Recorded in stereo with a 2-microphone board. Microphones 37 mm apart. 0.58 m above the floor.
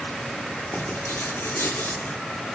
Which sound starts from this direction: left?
Writing, at 0.7 s.